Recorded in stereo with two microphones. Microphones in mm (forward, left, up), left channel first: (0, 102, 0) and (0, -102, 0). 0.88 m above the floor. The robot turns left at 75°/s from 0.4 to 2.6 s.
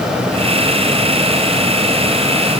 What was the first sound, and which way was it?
Only background noise.